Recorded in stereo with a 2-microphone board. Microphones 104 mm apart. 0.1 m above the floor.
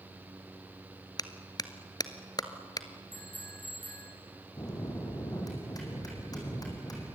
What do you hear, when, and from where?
1.2 s a clap: 40° left (ahead or behind), 1.3 m
3.1 s a bicycle bell: 60° left (ahead or behind), 6 m
4.6 s a bell: 35° left (ahead or behind), 5.5 m